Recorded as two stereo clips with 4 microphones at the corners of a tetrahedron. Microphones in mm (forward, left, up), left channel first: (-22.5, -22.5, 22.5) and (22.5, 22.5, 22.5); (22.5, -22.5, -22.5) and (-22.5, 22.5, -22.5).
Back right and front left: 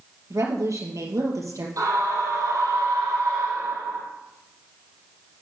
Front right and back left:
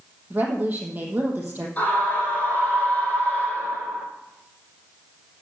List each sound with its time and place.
0.3 s a woman speaking: 75° left, 3.5 m
1.8 s a scream: 20° left, 5.5 m